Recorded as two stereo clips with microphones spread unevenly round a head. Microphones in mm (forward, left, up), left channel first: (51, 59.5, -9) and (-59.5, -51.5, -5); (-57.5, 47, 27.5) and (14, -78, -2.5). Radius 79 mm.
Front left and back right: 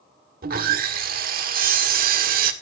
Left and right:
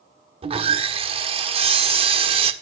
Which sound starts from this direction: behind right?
Sawing, at 0.4 s.